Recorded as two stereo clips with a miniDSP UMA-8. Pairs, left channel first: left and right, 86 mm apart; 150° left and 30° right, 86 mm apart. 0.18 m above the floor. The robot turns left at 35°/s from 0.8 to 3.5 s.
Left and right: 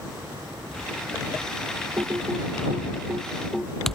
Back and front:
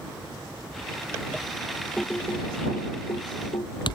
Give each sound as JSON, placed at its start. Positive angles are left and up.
{"t": 2.0, "sound": "typing on a keyboard", "azimuth_deg": -130}